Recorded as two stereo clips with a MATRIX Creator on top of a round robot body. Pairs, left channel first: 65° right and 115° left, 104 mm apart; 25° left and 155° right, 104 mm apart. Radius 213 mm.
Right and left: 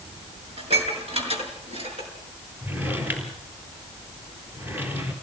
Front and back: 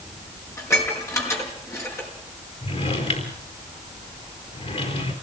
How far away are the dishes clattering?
About 5.5 m.